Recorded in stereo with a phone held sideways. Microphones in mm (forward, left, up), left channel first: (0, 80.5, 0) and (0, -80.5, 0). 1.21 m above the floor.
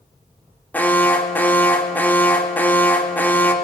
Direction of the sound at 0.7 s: 10° left (ahead or behind).